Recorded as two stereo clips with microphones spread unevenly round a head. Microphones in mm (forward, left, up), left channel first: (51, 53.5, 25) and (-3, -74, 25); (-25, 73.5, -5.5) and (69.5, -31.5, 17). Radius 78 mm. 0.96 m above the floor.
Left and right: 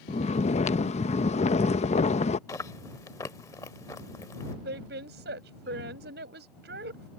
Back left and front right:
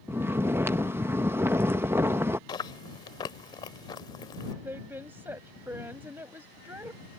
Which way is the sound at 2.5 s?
95° left.